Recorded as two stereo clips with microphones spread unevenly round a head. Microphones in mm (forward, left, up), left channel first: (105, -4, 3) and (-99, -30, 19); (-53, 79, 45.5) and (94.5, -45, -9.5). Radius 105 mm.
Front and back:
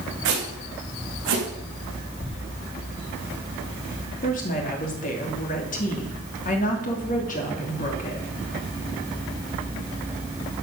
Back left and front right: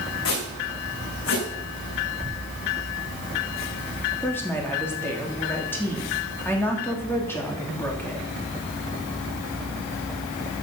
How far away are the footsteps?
About 6 m.